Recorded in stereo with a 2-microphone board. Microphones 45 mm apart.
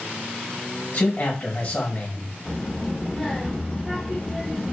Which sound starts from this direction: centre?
A child speaking, at 2.5 s.